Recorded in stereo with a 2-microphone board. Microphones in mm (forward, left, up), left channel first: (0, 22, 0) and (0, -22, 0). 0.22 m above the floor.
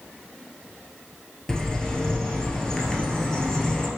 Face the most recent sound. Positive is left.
turn(degrees=15)  # may be behind; listen again after turning